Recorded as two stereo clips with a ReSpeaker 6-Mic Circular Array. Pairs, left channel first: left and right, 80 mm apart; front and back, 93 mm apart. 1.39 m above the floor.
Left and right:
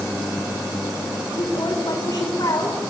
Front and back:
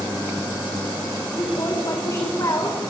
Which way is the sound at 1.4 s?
50° left.